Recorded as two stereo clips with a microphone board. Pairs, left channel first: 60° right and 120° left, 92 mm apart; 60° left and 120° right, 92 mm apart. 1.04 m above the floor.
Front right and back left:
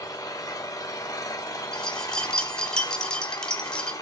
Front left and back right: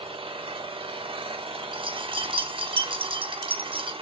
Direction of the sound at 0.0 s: 110° right.